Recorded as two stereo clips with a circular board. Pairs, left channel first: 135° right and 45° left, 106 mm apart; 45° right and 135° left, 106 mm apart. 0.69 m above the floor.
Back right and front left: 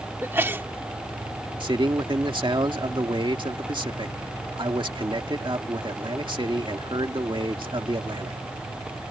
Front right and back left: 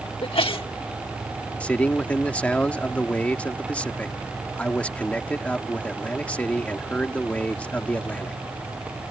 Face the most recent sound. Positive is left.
turn(degrees=30)